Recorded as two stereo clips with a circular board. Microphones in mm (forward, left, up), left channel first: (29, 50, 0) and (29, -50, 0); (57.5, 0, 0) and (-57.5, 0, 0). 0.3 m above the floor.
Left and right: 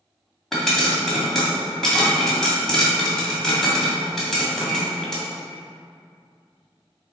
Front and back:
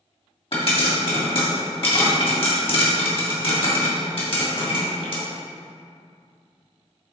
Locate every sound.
0.5 s a pop: 5° left, 2 m